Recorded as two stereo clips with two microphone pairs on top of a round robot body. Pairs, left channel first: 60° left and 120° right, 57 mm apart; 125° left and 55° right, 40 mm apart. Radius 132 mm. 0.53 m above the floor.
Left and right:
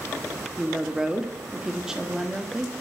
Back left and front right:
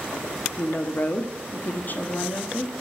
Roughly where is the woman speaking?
Behind left.